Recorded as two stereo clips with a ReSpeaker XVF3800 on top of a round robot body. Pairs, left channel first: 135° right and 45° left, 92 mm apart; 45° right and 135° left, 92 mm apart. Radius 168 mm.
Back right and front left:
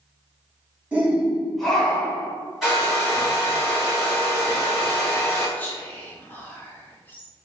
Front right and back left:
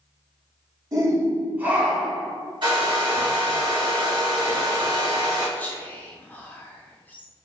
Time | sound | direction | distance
0.9 | a shout | 115° left | 1.2 m
2.6 | a hair dryer | 130° left | 2.0 m
5.6 | whispering | 90° right | 1.0 m